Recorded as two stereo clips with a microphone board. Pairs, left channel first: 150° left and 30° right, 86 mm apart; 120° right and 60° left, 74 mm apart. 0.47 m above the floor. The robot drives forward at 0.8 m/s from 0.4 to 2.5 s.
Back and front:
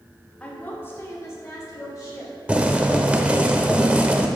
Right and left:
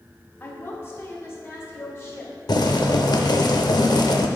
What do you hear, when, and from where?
0.4 s a woman speaking: 145° right, 1.1 m; by 2.3 s 170° right, 2.5 m
2.5 s boiling: 105° right, 0.5 m